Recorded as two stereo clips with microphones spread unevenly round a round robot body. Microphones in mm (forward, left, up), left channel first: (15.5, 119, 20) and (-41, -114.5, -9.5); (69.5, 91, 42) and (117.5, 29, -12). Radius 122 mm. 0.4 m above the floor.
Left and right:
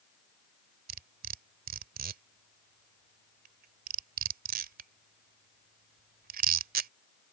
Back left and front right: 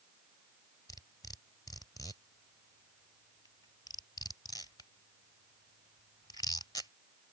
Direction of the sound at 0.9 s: 150° right.